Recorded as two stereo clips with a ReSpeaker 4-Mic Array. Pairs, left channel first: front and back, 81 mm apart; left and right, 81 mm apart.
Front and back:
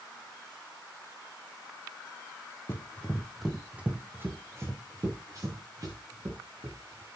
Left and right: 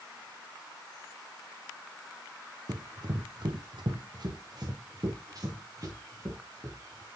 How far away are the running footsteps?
About 2.0 m.